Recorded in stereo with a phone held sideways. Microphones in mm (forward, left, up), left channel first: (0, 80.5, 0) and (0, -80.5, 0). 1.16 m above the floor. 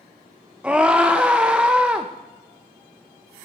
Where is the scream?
5° right (ahead or behind), 0.9 m.